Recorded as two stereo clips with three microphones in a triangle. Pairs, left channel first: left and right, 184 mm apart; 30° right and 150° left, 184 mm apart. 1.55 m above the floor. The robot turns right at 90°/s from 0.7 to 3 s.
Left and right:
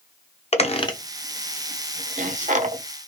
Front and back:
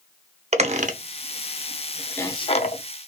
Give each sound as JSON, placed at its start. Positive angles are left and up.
{"t": 0.5, "sound": "a squeak", "azimuth_deg": 125, "distance_m": 0.6}